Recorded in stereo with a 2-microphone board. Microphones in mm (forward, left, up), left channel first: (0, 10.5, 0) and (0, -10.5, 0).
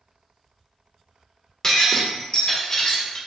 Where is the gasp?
I don't hear a gasp.